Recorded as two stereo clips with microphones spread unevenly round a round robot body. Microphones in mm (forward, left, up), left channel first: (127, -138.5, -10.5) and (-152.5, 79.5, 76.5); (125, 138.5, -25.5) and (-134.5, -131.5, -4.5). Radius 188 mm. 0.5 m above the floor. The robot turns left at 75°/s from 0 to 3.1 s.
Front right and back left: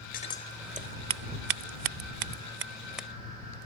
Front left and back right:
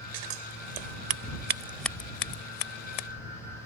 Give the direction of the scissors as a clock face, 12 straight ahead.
3 o'clock.